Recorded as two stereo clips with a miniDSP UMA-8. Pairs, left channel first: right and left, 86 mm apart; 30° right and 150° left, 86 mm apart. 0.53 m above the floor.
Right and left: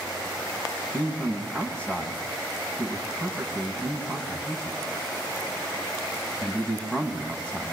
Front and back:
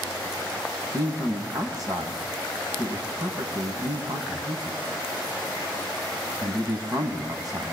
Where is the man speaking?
165° right, 4 m.